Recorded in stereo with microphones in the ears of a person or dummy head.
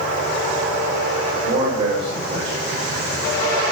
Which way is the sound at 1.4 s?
55° right (ahead or behind).